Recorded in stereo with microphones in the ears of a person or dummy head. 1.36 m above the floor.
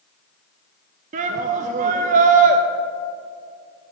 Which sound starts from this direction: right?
A shout, at 1.1 s.